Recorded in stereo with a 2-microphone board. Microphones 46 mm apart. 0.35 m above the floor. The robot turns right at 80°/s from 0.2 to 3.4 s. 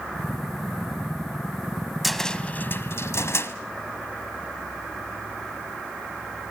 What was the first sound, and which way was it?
A cupboard door, centre (ahead or behind).